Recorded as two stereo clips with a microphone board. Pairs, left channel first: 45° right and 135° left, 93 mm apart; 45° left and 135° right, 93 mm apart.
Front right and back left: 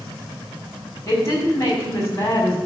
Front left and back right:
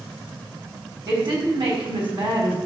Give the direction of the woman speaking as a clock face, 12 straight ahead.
3 o'clock.